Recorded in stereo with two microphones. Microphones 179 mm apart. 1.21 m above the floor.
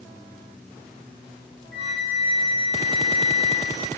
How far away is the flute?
About 9.5 m.